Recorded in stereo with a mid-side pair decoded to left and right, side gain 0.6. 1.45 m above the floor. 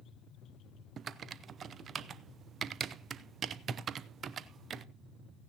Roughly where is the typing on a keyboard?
Ahead right.